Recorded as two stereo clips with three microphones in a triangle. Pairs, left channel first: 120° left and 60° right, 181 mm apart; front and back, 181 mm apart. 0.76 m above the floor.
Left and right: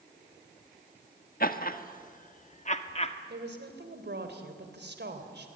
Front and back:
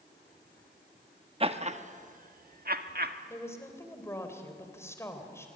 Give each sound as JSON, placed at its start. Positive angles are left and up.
{"t": 1.4, "sound": "laughter", "azimuth_deg": 130, "distance_m": 1.4}
{"t": 3.3, "sound": "a woman speaking", "azimuth_deg": -75, "distance_m": 3.5}